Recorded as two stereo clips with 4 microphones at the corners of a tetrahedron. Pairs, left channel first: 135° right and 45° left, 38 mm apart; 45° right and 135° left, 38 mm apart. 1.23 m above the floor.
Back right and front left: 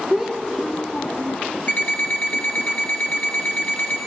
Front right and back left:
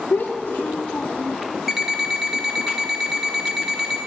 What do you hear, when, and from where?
0.1 s a child speaking: 40° right, 0.7 m; by 1.4 s 125° right, 0.6 m
1.7 s an alarm clock: 145° right, 1.0 m